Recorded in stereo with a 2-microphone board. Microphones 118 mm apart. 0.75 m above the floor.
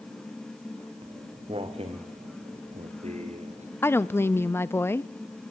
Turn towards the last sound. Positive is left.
turn(degrees=20)  # may be behind; listen again after turning